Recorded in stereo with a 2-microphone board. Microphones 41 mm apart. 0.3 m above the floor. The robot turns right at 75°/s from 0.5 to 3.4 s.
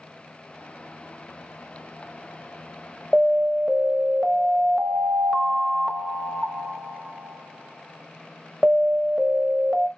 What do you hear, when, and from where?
3.1 s an alarm: 5° right (ahead or behind), 0.9 m; by 9.9 s 15° right (ahead or behind), 0.9 m